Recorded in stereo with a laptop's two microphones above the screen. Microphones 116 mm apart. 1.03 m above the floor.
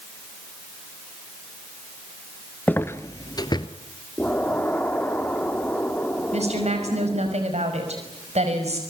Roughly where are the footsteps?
Centre.